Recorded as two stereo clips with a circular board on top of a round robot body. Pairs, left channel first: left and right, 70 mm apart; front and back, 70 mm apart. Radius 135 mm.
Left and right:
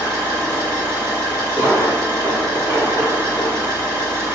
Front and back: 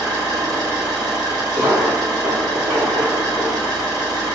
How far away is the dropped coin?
About 1.7 m.